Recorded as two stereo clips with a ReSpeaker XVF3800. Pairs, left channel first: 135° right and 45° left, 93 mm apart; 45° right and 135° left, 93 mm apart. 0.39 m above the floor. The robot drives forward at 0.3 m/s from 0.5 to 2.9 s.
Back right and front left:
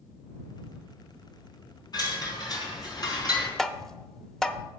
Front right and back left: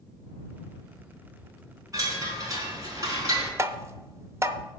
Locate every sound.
1.9 s a chime: 175° right, 3.5 m
3.6 s tapping: 145° left, 0.6 m